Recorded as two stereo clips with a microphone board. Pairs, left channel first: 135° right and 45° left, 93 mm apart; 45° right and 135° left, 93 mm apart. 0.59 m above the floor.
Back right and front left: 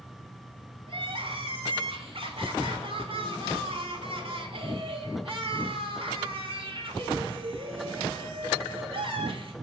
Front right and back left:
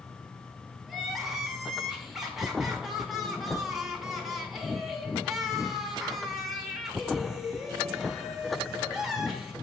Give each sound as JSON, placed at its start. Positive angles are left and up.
{"t": 0.9, "sound": "crying", "azimuth_deg": 45, "distance_m": 1.5}